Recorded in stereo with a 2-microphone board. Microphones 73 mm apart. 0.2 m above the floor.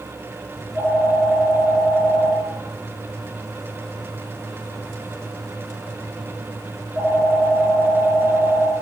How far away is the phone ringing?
About 2.0 m.